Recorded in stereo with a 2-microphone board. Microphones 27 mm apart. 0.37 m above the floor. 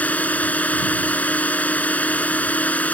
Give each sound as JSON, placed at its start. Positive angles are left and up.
{"t": 0.0, "sound": "a drone", "side_deg": 65}